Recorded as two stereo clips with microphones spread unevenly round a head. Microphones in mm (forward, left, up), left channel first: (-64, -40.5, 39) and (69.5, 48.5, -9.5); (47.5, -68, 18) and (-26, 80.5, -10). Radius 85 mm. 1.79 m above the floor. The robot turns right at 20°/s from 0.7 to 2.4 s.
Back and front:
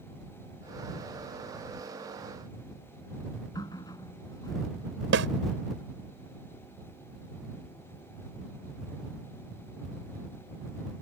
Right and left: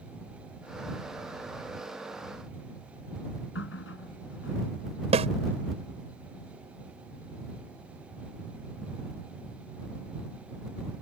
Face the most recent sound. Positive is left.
turn(degrees=60)